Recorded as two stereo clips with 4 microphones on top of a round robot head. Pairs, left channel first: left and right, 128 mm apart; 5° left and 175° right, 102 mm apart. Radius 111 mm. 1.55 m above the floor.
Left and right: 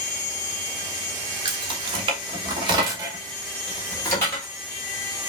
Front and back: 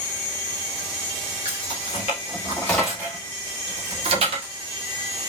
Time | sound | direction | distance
1.4 | keys jangling | 40° right | 1.4 m